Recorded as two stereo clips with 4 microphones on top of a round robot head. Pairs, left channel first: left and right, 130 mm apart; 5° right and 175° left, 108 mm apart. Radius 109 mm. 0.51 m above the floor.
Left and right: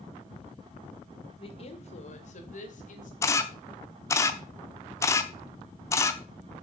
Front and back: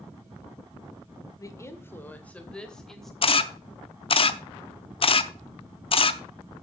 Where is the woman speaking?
50° left, 1.9 m; by 3.1 s 85° left, 3 m.